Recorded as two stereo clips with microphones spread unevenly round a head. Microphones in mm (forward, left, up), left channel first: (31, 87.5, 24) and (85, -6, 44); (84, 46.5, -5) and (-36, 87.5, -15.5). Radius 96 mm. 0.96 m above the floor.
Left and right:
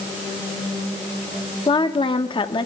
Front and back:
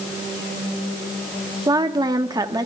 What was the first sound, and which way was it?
A woman speaking, 110° left.